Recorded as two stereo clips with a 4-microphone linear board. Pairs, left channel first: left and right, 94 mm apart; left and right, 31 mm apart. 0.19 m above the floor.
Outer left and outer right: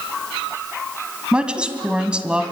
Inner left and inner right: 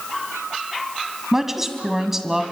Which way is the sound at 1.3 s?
10° right (ahead or behind).